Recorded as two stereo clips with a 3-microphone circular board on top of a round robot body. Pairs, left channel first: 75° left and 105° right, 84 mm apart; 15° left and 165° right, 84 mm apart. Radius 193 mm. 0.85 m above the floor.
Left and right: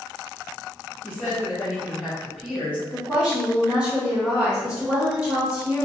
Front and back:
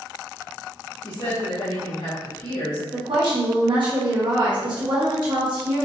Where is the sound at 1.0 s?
Straight ahead, 1.7 m.